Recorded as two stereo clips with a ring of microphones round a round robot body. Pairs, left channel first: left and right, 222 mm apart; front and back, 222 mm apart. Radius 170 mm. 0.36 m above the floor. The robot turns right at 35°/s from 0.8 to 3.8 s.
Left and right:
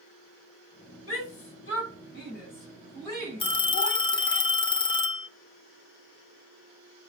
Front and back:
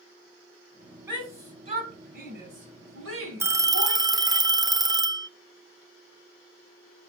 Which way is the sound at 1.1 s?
95° left.